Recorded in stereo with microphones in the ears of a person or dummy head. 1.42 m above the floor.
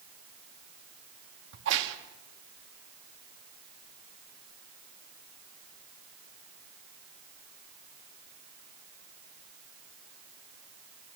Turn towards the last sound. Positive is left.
turn(degrees=-65)  # may be behind; listen again after turning